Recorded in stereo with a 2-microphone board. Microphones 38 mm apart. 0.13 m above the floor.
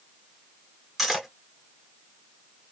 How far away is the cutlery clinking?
About 0.8 m.